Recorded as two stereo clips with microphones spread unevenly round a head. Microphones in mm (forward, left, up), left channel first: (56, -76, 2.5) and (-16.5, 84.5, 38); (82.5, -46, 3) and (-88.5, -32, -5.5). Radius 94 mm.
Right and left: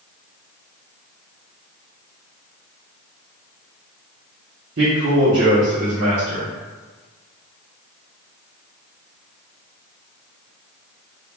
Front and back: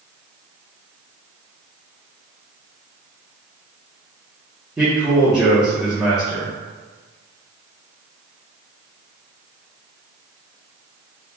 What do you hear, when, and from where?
4.8 s a man speaking: 95° left, 1.0 m